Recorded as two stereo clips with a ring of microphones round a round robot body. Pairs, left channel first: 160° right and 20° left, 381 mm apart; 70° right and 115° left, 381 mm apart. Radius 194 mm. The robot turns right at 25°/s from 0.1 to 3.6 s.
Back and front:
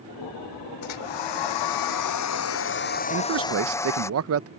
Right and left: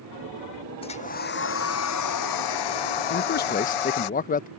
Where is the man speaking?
20° right; by 4.5 s 10° right.